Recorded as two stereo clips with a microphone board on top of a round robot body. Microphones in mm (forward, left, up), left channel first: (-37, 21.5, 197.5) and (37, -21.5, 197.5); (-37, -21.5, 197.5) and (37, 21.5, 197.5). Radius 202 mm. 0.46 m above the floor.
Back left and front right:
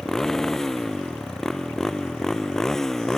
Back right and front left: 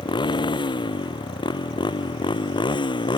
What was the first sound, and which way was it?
A motorcycle, 125° right.